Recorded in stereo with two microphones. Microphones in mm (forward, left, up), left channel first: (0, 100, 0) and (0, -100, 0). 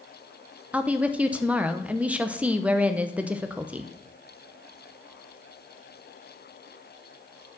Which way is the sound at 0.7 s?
5° right (ahead or behind).